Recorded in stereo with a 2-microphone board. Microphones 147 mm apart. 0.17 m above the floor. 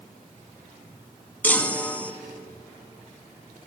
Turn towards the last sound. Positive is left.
turn(degrees=10)  # may be behind; listen again after turning